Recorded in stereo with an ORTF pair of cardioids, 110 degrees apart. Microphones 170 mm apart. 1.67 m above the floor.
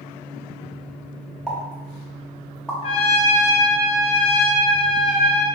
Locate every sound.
1.5 s a pop: 5° left, 0.7 m
2.8 s a trumpet: 35° left, 0.5 m